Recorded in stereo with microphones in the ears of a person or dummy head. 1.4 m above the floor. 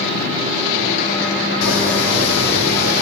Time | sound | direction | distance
1.6 | footsteps | 70° left (ahead or behind) | 4.5 m